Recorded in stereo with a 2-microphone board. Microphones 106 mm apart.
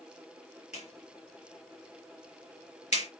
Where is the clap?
80° left, 3.5 m.